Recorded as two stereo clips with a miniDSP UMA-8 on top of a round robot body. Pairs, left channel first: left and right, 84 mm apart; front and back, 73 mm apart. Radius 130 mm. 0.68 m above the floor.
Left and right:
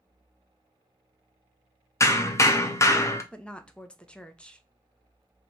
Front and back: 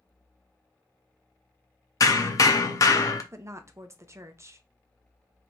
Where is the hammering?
40° left, 0.6 m.